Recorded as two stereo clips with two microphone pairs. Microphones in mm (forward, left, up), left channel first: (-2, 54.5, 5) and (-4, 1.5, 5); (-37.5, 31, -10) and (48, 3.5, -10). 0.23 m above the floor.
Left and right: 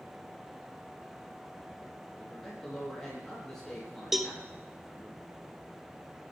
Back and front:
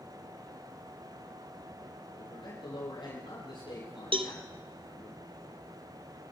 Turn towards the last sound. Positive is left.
turn(degrees=-5)